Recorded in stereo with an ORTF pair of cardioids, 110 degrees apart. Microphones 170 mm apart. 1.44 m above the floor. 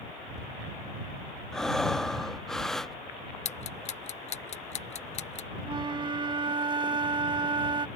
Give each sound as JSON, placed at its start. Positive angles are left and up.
{"t": 1.5, "sound": "breathing", "azimuth_deg": 5}
{"t": 3.5, "sound": "ticking", "azimuth_deg": 40}
{"t": 5.6, "sound": "a flute", "azimuth_deg": -30}